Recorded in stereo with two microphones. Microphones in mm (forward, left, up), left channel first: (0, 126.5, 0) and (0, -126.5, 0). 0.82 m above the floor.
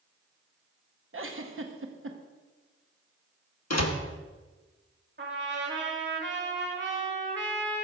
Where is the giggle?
55° right (ahead or behind), 0.8 m.